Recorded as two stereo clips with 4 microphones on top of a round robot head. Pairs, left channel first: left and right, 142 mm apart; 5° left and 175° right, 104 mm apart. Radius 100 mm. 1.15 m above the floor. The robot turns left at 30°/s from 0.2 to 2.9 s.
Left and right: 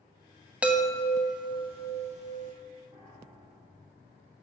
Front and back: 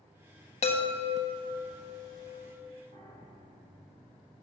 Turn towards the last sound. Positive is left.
turn(degrees=-170)